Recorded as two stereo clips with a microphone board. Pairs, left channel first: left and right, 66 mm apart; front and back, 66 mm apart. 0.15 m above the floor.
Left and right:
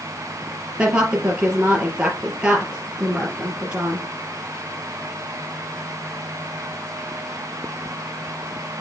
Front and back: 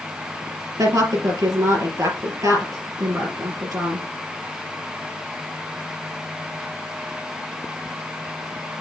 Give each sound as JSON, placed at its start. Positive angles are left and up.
{"t": 0.8, "sound": "a woman speaking", "azimuth_deg": -165, "distance_m": 3.5}